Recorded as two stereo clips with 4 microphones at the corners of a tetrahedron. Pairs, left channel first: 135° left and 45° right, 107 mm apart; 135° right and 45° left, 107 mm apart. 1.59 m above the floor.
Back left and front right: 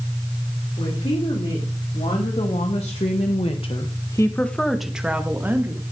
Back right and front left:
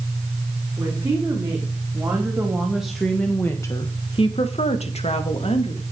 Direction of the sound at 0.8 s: 110° left.